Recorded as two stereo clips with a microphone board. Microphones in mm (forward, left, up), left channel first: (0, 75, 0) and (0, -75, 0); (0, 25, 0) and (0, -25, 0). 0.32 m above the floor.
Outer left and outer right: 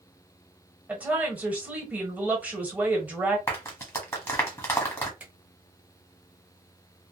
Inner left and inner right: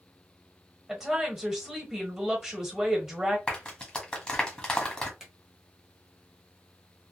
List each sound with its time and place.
0.9 s a woman speaking: 10° right (ahead or behind), 1.2 m
3.5 s a clap: 20° left (ahead or behind), 1.4 m
5.2 s a finger snap: 10° right (ahead or behind), 1.1 m